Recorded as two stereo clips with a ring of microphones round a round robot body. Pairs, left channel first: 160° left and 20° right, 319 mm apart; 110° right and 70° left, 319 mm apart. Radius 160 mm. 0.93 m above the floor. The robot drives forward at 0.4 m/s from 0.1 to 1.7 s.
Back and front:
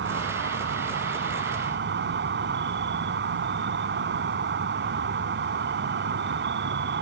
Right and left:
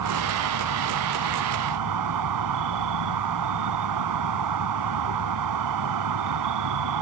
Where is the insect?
35° left.